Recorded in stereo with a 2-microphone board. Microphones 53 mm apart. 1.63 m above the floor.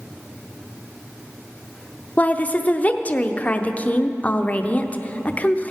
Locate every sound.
2.2 s a woman speaking: 25° left (ahead or behind), 0.6 m